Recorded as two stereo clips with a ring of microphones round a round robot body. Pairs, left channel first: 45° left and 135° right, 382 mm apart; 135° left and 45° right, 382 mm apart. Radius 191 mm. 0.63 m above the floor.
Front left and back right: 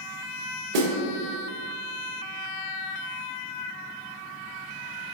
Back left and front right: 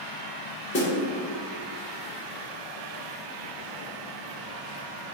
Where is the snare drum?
160° right, 0.7 m.